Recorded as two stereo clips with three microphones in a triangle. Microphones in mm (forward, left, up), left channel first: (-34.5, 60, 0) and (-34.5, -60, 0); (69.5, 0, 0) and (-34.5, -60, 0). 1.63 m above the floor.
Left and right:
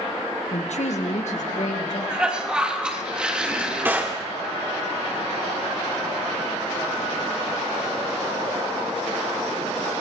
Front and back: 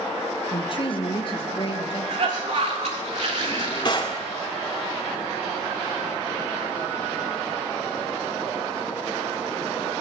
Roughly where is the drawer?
Ahead.